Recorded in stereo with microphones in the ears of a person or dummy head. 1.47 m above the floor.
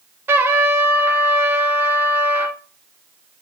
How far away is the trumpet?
About 0.6 m.